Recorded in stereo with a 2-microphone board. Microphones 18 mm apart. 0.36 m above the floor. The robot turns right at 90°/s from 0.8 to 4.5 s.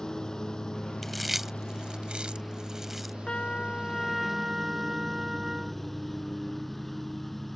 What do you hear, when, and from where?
0.0 s a lawn mower: 40° left; by 7.6 s 10° left
1.0 s chewing: 10° left (ahead or behind); by 3.1 s centre (ahead or behind)
3.3 s a trumpet: 95° left; by 5.8 s 150° right